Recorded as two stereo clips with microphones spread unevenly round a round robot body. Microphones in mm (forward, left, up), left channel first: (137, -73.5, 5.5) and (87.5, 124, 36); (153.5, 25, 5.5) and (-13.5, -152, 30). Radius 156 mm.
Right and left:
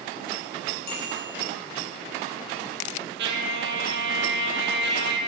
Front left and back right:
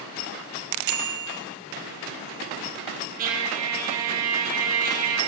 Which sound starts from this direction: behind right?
A bicycle bell, at 0.8 s.